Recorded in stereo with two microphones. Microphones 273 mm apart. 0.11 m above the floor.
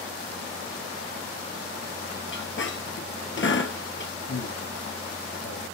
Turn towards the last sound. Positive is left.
turn(degrees=55)  # may be behind; listen again after turning